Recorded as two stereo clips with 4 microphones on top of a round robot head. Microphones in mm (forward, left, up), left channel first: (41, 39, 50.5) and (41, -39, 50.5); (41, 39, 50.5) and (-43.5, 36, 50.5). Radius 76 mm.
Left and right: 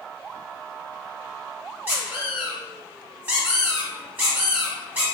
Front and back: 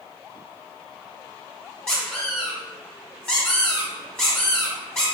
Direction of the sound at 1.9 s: 65° right.